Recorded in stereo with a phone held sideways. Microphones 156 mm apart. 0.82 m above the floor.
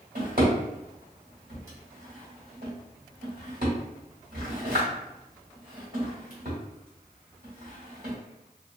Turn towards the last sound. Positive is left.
turn(degrees=-75)  # may be behind; listen again after turning